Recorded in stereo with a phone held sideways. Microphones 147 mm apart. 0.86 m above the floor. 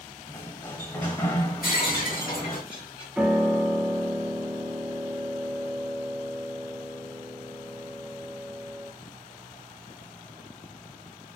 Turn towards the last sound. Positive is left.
turn(degrees=-5)  # may be behind; listen again after turning